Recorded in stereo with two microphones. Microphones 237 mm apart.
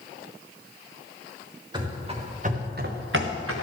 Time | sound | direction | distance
1.7 | running footsteps | 15° right (ahead or behind) | 3 m